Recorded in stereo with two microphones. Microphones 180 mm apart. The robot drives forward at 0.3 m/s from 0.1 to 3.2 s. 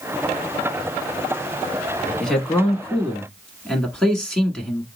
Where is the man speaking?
5° left (ahead or behind), 1.0 m.